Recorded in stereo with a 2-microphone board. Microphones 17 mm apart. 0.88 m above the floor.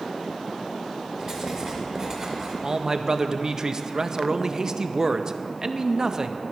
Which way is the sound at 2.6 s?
40° right (ahead or behind).